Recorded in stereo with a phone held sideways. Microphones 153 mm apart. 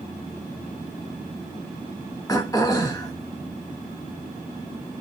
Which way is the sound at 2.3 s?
25° left (ahead or behind).